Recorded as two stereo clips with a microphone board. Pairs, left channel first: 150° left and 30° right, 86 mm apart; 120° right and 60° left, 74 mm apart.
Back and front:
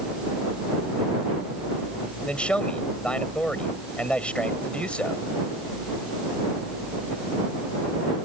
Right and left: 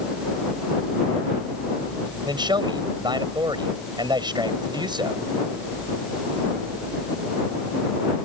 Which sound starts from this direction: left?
A man speaking, at 2.2 s.